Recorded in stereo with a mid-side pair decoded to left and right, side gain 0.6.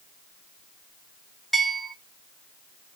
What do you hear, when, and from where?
1.5 s a bell: straight ahead, 1.3 m